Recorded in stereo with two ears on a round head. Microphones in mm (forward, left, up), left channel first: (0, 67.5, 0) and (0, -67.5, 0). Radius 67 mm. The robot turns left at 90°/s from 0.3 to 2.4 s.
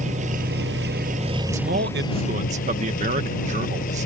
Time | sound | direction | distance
0.0 | an engine running | 50° right | ?
1.5 | a man speaking | 50° right | ?